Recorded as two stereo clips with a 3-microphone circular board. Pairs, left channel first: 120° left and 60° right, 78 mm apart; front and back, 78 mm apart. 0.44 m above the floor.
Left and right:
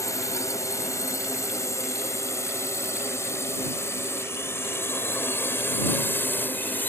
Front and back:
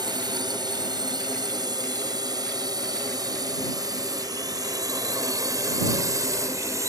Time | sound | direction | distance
0.0 | a drone | 165° left | ?